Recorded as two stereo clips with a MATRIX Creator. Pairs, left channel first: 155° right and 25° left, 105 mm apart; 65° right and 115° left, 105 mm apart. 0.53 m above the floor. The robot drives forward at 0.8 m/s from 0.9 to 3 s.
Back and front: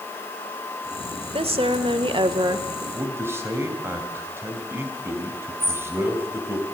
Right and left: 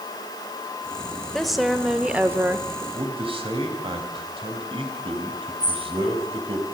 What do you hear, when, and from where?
1.3 s a woman speaking: 20° left, 1.6 m; by 2.8 s 70° left, 0.8 m
2.9 s a man speaking: 85° left, 3 m; by 6.6 s 90° left, 3 m
5.6 s a bird: 40° right, 4 m